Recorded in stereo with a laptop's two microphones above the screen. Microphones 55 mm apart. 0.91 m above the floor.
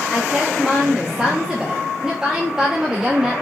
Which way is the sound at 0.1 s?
10° right (ahead or behind).